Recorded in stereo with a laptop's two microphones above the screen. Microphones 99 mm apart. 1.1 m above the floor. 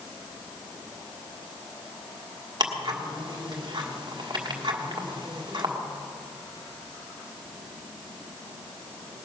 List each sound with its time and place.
2.6 s ticking: 50° right (ahead or behind), 1.6 m